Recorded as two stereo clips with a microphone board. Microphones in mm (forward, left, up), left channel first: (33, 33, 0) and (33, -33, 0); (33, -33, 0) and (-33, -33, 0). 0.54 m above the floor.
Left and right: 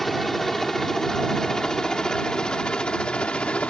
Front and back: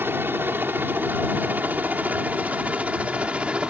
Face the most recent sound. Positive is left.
turn(degrees=135)